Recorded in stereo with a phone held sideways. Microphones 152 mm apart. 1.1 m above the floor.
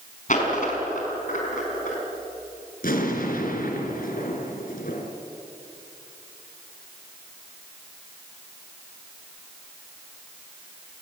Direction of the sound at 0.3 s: 55° left (ahead or behind).